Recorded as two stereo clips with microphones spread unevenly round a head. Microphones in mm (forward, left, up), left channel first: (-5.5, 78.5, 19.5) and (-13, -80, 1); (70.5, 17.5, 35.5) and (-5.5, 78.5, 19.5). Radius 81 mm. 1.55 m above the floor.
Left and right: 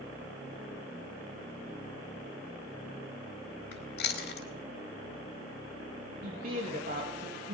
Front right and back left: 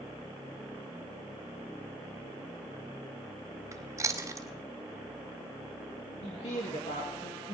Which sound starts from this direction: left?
Chewing, at 3.7 s.